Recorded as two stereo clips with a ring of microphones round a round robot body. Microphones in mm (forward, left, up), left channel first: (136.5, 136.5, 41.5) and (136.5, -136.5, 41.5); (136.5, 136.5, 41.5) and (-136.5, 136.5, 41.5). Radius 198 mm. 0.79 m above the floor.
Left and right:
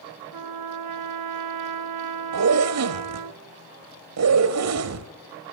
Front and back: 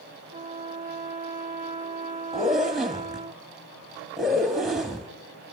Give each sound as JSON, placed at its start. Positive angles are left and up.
{"t": 0.3, "sound": "a trumpet", "azimuth_deg": -110, "distance_m": 0.5}
{"t": 2.3, "sound": "a zipper", "azimuth_deg": -90, "distance_m": 1.9}